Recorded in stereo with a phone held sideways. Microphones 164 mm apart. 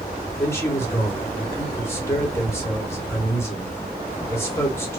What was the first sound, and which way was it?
A man speaking, 15° left (ahead or behind).